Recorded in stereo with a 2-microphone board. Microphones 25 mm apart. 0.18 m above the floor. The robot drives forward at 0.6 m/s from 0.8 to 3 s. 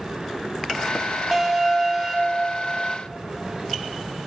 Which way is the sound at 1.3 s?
15° right (ahead or behind).